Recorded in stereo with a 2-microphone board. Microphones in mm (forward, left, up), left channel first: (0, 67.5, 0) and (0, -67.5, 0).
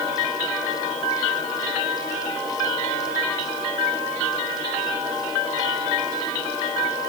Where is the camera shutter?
No camera shutter in this recording.